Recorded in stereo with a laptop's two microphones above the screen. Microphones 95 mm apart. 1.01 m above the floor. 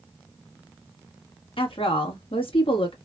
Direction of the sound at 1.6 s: 70° left (ahead or behind).